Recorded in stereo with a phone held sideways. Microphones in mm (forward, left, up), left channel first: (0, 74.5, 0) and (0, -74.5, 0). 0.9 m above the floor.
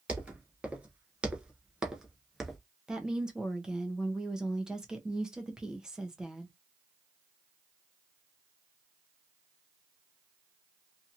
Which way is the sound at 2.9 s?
5° right (ahead or behind).